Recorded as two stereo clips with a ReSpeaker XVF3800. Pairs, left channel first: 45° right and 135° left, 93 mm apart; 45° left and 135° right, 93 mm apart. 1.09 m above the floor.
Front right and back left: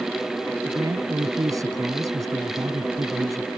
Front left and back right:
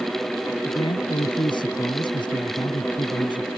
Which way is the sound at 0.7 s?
80° left.